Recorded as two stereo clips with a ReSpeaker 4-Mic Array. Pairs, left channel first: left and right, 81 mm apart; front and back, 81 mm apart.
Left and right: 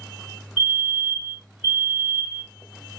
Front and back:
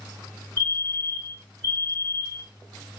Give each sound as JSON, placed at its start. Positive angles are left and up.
{"t": 0.6, "sound": "a fire alarm", "azimuth_deg": -160, "distance_m": 2.5}